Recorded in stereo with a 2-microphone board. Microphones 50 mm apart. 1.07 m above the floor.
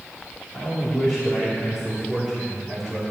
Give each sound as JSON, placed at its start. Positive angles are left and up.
{"t": 0.5, "sound": "a man speaking", "side_deg": 35, "distance_m": 3.5}